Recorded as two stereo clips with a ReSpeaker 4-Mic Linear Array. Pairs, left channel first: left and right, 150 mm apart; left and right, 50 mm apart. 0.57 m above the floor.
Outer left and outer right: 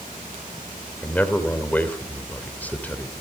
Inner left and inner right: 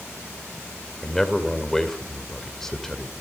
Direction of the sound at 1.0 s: 10° left (ahead or behind).